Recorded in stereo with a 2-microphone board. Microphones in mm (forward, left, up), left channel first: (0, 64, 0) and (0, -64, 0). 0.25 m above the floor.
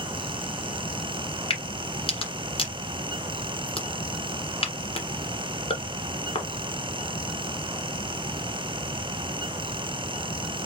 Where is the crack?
45° left (ahead or behind), 1.7 m.